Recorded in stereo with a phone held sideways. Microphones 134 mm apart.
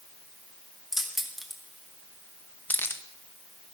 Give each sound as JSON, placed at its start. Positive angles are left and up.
{"t": 0.9, "sound": "keys jangling", "side_deg": -5, "distance_m": 1.5}